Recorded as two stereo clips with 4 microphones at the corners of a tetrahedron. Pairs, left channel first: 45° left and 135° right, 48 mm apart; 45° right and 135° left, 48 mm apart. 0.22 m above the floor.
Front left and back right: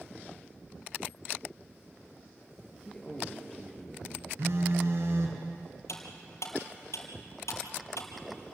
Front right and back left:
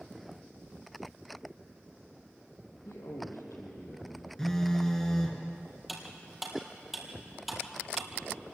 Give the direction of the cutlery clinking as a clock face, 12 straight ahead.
10 o'clock.